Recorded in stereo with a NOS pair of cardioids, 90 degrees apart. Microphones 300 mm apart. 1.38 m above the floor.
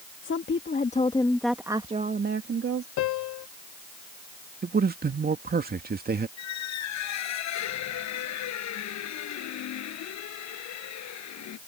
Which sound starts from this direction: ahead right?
A man speaking, at 4.6 s.